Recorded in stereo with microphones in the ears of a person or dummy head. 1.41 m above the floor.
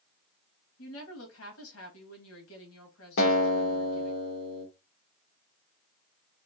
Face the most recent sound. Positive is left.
turn(degrees=75)  # may be behind; listen again after turning